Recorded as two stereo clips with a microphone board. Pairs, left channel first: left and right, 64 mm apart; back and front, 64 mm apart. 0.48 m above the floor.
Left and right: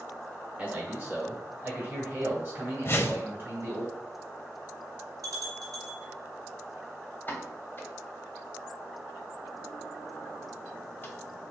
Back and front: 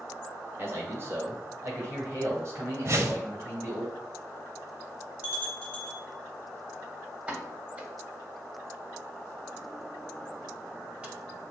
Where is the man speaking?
30° right, 1.2 m; by 3.9 s 45° right, 3 m.